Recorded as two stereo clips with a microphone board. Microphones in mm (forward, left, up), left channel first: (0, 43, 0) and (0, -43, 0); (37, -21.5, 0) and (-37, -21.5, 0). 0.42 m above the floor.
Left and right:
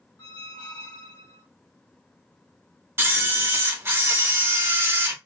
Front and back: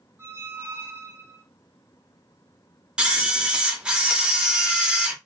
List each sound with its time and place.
0.2 s a squeak: 125° left, 1.6 m
3.0 s a camera shutter: 115° right, 0.7 m